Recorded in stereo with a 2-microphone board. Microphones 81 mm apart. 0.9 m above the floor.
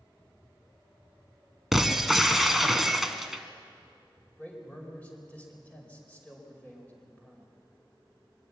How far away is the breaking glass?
About 1.2 m.